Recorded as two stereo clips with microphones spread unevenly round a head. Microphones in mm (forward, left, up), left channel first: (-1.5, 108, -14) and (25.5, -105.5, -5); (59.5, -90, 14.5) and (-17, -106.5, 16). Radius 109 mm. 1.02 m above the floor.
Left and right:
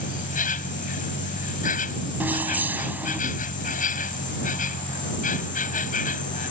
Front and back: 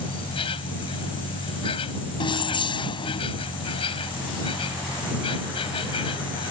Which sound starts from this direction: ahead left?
An insect, at 0.0 s.